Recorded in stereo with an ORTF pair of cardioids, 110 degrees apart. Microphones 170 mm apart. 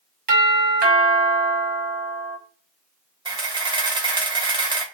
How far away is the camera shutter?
About 0.8 m.